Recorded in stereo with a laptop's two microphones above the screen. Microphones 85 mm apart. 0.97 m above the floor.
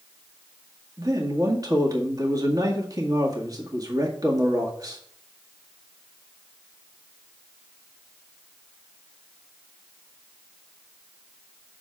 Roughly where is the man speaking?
Right.